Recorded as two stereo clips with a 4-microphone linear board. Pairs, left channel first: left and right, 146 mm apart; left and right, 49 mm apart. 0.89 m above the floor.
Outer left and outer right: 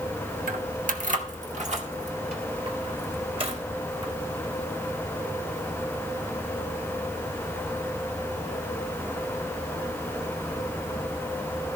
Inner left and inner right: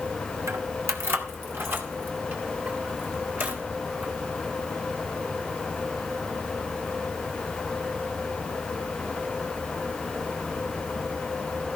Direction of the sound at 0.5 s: 75° right (ahead or behind).